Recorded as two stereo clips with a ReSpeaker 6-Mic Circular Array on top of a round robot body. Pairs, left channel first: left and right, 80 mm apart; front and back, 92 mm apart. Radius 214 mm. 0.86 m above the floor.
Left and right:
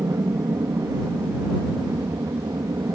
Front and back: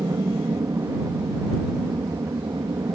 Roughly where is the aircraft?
Behind right.